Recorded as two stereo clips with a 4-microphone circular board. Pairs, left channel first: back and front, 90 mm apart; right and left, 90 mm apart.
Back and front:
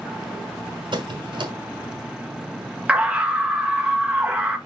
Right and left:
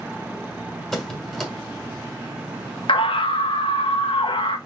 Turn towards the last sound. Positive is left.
turn(degrees=-75)